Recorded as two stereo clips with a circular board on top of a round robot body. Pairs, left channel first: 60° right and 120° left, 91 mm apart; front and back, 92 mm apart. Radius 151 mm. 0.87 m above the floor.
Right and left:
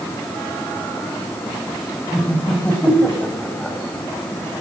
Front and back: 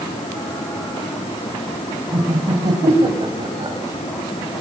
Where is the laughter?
135° right, 6 m; by 3.8 s 140° right, 7.5 m.